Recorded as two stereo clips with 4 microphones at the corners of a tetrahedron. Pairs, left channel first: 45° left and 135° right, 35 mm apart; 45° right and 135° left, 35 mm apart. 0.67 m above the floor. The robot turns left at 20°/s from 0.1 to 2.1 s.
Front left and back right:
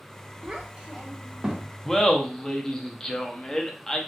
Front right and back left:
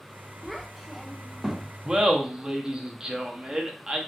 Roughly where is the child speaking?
Behind right.